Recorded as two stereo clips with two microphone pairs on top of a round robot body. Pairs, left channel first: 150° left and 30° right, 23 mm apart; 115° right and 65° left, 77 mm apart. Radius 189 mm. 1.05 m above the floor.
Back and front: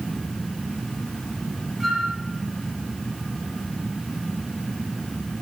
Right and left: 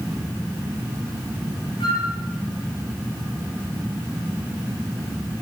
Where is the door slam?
I don't hear a door slam.